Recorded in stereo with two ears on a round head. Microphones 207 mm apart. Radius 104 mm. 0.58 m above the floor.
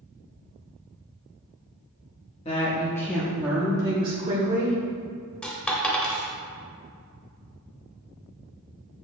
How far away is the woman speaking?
About 1.1 m.